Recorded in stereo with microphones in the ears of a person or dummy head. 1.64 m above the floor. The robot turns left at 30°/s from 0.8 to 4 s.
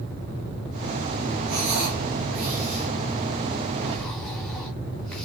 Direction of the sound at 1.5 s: 70° right (ahead or behind).